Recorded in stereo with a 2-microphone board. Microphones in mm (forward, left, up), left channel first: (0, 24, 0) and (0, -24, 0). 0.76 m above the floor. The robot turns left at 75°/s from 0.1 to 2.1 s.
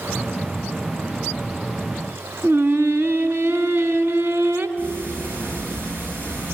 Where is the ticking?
50° right (ahead or behind), 5 m.